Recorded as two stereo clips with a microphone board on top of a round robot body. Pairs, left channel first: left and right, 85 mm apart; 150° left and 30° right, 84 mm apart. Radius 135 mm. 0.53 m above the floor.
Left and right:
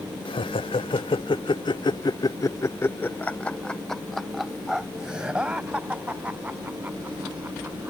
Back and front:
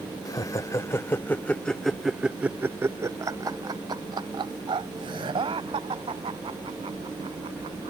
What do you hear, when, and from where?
0.2 s laughter: 105° left; by 7.9 s 20° right